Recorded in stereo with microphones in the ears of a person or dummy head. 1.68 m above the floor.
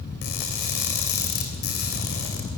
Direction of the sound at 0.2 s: 55° left (ahead or behind).